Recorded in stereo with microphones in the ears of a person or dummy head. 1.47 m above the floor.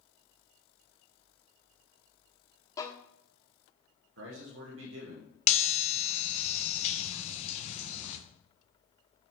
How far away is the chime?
About 1.1 m.